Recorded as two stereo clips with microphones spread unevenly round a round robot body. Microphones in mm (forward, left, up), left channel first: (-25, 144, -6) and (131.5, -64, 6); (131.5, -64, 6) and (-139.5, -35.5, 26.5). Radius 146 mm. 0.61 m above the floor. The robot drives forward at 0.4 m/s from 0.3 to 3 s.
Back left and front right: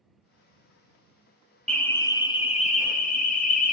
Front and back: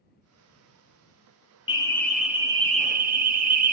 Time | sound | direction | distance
1.7 | an alarm | 45° left | 0.7 m